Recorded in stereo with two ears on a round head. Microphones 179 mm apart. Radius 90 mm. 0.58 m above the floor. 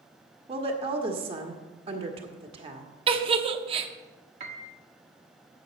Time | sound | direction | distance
0.5 | a woman speaking | 30° right (ahead or behind) | 1.3 m
3.1 | a giggle | 30° right (ahead or behind) | 0.7 m
4.4 | a piano | 35° right (ahead or behind) | 1.2 m